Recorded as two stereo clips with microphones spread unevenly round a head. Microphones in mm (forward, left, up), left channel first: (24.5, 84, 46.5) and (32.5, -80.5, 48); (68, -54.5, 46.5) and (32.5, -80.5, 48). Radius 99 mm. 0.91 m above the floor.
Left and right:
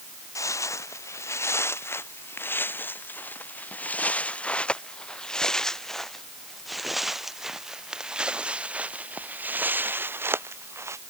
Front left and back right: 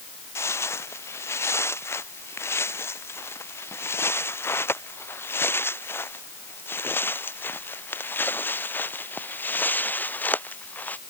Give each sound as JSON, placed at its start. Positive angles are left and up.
{"t": 0.3, "sound": "footsteps", "azimuth_deg": 20}